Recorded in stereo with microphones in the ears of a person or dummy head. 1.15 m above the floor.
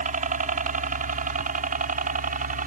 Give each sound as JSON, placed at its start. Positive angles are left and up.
{"t": 0.0, "sound": "a helicopter", "side_deg": -30}